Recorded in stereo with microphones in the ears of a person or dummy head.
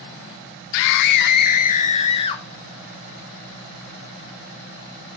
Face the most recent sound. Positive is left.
turn(degrees=25)  # may be behind; listen again after turning